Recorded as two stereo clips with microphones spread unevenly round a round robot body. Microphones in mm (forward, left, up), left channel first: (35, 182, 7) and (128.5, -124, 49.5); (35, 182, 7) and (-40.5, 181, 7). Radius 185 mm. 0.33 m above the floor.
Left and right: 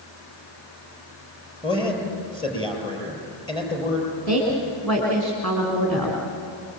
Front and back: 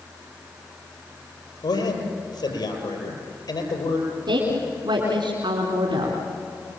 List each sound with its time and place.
1.6 s a man speaking: 30° left, 8.5 m
4.3 s a woman speaking: 170° right, 4 m